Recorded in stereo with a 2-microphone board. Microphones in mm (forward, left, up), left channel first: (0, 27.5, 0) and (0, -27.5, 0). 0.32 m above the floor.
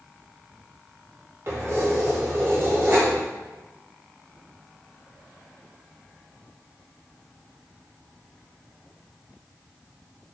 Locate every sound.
1.5 s keys jangling: 50° right (ahead or behind), 0.9 m